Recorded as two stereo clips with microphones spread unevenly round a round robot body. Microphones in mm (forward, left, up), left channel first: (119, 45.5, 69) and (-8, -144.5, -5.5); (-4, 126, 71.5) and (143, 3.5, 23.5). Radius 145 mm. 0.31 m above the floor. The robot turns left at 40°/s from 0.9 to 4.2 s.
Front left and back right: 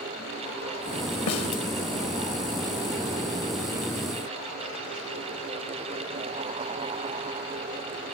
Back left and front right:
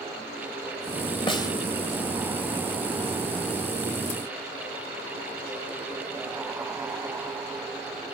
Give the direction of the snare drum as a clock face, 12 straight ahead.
10 o'clock.